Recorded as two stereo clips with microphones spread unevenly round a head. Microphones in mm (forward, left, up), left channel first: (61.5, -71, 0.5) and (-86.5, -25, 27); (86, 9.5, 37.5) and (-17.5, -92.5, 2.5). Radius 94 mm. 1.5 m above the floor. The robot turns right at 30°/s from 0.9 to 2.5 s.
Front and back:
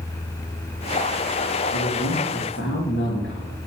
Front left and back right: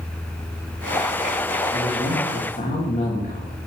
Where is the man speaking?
15° right, 3 m; by 3.6 s 10° left, 3 m.